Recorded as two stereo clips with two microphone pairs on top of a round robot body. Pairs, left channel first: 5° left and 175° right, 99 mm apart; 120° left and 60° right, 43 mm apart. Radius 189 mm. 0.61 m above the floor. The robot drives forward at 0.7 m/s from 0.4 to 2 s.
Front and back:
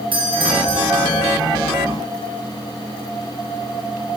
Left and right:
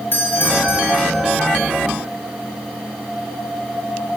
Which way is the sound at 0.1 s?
150° left.